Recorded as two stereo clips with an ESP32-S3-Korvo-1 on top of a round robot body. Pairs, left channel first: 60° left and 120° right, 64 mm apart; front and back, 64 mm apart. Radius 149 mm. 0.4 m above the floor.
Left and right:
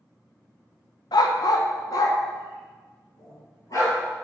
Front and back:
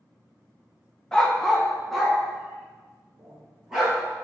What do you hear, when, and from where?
1.1 s a dog barking: 80° left, 0.7 m; by 4.0 s 95° left, 2.5 m